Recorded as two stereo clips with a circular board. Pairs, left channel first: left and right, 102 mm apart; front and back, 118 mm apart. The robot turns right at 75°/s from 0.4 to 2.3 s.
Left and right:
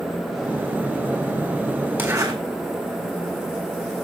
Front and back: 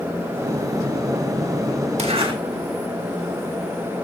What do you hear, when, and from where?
2.0 s a zipper: 160° right, 3 m; by 2.3 s 135° right, 3 m